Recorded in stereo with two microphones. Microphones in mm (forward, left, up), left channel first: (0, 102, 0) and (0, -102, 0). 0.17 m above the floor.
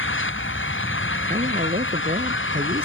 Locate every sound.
0.0 s an engine running: 85° left
1.3 s a man speaking: 50° right (ahead or behind)